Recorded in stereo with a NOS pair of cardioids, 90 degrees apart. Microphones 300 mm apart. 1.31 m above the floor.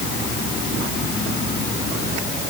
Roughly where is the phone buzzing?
No phone buzzing in this recording.